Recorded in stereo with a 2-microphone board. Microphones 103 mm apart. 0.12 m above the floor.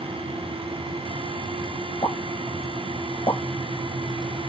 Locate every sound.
2.0 s a pop: 45° left (ahead or behind), 1.3 m